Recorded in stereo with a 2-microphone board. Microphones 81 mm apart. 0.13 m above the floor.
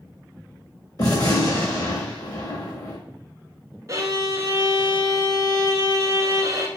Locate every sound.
1.0 s a gunshot: 50° left (ahead or behind), 1.4 m
3.9 s a violin: 40° right (ahead or behind), 0.8 m